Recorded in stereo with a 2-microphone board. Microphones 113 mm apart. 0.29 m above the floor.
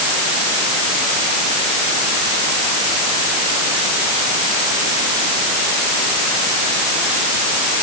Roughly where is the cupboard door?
No cupboard door in this recording.